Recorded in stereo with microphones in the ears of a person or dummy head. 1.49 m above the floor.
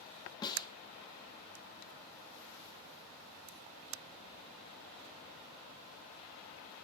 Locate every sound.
0.4 s a snare drum: 25° left (ahead or behind), 3 m